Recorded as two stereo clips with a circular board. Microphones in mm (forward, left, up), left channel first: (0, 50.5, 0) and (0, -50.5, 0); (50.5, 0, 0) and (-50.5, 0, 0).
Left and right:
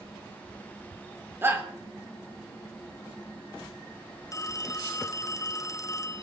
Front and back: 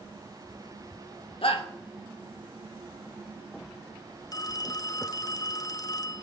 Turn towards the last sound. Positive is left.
turn(degrees=40)